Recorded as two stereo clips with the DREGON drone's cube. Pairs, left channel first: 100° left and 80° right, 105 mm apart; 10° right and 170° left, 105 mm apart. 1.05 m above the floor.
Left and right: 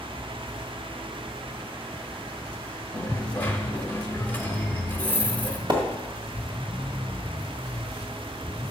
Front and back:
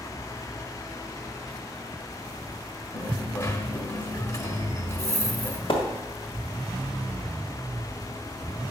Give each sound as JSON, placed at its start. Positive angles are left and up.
{"t": 2.9, "sound": "a dropped coin", "azimuth_deg": 30, "distance_m": 0.9}
{"t": 5.7, "sound": "a splash", "azimuth_deg": -40, "distance_m": 1.7}